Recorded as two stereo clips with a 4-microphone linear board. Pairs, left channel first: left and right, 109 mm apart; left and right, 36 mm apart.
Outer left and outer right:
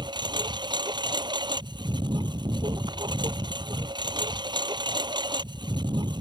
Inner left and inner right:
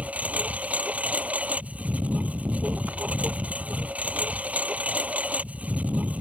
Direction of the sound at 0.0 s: 45° right (ahead or behind).